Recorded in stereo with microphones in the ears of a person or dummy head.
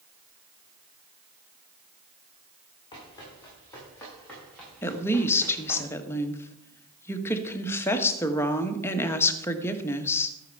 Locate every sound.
2.9 s running footsteps: 25° left (ahead or behind), 6 m; by 5.8 s centre (ahead or behind), 9 m
4.8 s a woman speaking: 15° left (ahead or behind), 1.3 m